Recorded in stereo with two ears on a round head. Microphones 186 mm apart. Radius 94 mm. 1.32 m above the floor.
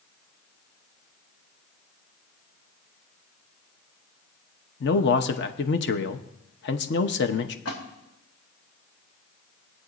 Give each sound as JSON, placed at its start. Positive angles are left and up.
{"t": 4.8, "sound": "a man speaking", "side_deg": 60, "distance_m": 0.9}
{"t": 7.7, "sound": "a splash", "side_deg": 75, "distance_m": 3.0}